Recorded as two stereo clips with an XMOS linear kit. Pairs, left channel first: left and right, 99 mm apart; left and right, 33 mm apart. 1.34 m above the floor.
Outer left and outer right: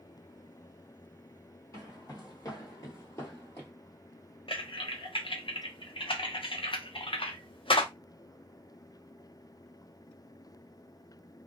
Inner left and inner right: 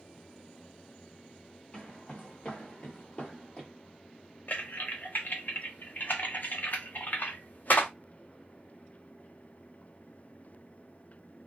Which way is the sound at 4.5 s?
65° left (ahead or behind).